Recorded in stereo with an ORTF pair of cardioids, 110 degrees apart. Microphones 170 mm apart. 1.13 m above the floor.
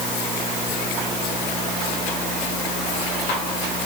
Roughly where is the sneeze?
No sneeze in this recording.